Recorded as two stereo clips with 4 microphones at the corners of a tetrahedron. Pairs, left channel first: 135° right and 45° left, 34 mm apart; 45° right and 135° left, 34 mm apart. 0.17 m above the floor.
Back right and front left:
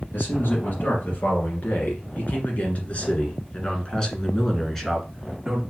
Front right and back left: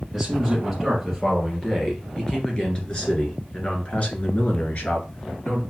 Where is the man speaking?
135° right, 3 m; by 5.6 s 45° right, 2 m.